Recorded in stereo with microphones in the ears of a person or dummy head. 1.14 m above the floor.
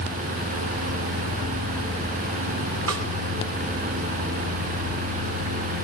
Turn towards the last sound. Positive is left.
turn(degrees=-70)  # may be behind; listen again after turning